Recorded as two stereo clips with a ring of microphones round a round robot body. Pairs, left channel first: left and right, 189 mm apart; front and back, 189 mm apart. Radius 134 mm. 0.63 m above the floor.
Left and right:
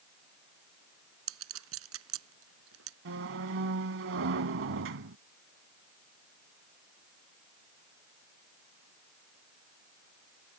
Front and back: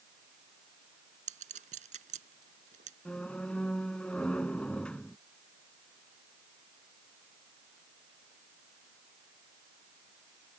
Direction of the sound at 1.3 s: 115° right.